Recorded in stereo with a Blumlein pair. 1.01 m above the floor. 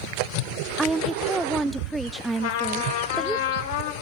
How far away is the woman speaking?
About 0.6 m.